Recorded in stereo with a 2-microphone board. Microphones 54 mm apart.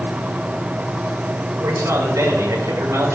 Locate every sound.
1.6 s a man speaking: 70° right (ahead or behind), 6.5 m